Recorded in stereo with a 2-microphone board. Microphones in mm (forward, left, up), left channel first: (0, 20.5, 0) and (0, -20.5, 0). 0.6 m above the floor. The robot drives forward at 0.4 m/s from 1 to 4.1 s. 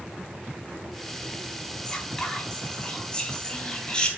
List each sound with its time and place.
1.9 s whispering: 20° left (ahead or behind), 4.5 m